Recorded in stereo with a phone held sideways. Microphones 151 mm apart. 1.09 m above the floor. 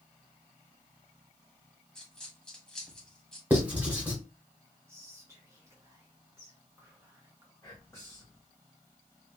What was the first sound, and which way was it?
A dropped coin, 5° left (ahead or behind).